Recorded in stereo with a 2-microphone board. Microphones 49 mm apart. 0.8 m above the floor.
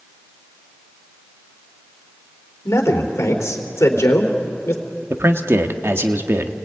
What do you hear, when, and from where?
2.6 s a man speaking: 75° left (ahead or behind), 3 m
5.1 s a man speaking: 55° right (ahead or behind), 1.5 m